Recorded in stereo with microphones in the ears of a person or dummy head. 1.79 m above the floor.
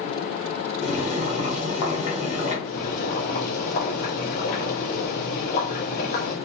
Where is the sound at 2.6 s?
50° left (ahead or behind), 1.4 m.